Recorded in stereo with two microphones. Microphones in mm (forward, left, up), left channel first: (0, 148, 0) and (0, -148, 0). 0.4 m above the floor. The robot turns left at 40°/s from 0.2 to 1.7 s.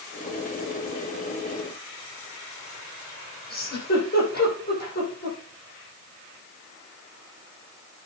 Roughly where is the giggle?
Left.